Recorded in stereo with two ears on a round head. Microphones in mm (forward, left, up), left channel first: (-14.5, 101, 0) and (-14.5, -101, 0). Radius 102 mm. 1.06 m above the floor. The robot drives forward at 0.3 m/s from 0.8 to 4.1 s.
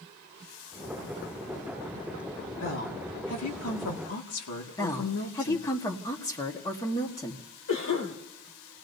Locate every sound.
2.6 s a woman speaking: 60° left (ahead or behind), 2 m; by 5.7 s 70° left (ahead or behind), 2 m
4.8 s a woman speaking: 15° left (ahead or behind), 1.5 m
7.7 s a cough: 80° left, 5.5 m